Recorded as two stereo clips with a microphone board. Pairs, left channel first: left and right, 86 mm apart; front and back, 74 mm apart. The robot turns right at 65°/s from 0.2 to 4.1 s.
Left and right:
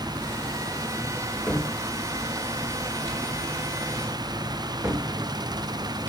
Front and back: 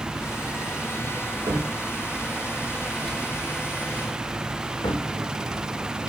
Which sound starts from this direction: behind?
A cupboard door, at 1.5 s.